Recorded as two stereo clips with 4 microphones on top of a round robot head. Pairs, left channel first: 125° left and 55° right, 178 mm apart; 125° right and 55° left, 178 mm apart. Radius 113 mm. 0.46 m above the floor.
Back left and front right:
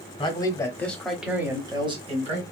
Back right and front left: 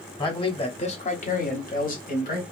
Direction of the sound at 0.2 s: Straight behind.